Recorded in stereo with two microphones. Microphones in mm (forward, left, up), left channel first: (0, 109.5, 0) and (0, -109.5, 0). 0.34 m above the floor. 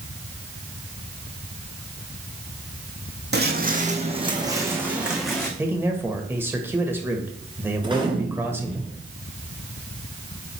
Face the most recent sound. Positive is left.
turn(degrees=-20)  # may be behind; listen again after turning